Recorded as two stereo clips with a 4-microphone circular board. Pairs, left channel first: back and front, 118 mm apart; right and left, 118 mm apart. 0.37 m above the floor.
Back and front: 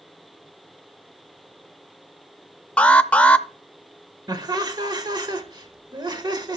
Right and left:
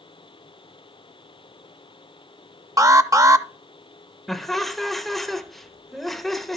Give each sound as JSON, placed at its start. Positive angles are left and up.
{"t": 2.8, "sound": "an alarm", "azimuth_deg": 110, "distance_m": 0.5}
{"t": 4.3, "sound": "laughter", "azimuth_deg": -5, "distance_m": 1.0}